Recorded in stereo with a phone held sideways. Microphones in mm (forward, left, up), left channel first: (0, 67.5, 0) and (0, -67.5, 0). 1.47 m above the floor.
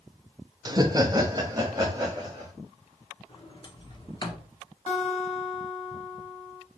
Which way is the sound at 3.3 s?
35° left (ahead or behind).